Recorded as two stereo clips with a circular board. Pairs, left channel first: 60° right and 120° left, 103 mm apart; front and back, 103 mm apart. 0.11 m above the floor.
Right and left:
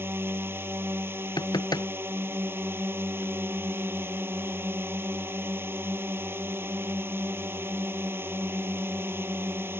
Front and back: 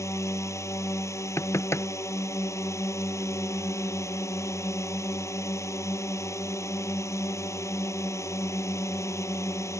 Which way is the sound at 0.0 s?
55° left.